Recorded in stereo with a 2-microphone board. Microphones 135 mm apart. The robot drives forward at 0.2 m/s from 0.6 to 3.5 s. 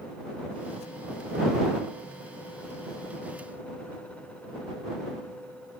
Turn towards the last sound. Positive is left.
No sound to turn to.